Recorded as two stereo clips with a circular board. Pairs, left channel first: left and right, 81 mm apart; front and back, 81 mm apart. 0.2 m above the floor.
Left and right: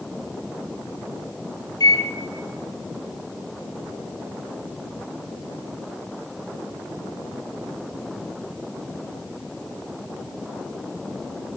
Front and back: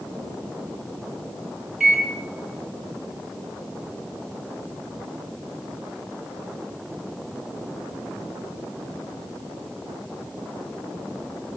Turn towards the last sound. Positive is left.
turn(degrees=95)